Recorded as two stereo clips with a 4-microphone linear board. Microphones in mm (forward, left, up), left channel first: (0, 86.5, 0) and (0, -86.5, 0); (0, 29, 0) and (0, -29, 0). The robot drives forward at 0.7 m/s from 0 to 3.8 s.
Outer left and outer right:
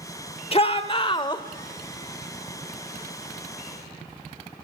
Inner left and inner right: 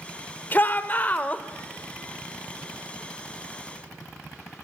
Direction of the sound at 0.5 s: 35° left (ahead or behind).